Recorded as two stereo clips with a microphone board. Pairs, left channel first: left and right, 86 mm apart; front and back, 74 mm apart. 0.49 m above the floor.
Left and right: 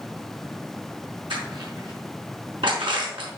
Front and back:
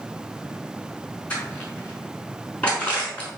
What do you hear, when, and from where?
1.3 s crushing: 70° right, 5.5 m